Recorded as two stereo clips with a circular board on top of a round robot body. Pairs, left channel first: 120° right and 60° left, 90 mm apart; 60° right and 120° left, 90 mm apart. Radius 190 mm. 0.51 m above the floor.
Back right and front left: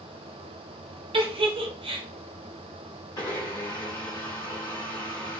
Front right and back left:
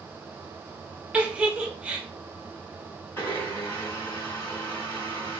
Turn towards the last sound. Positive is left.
turn(degrees=-115)